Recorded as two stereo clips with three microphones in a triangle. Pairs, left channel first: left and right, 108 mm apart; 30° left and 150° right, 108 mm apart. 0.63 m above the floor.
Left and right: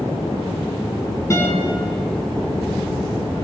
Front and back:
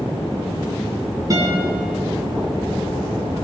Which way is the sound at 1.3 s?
155° left.